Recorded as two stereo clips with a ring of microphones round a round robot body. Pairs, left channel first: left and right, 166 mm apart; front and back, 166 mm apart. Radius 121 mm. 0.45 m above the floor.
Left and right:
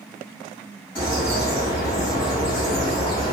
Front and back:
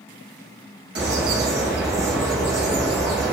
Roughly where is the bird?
Behind.